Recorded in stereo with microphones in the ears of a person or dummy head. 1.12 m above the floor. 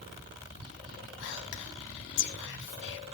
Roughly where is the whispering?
Left.